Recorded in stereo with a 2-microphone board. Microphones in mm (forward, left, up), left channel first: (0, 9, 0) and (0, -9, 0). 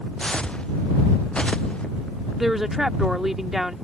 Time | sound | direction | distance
0.2 | footsteps | 75° left (ahead or behind) | ?
2.4 | a woman speaking | 20° right (ahead or behind) | ?